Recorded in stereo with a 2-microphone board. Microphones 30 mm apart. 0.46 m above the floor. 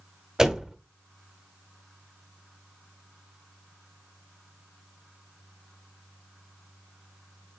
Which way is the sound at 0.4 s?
20° right (ahead or behind).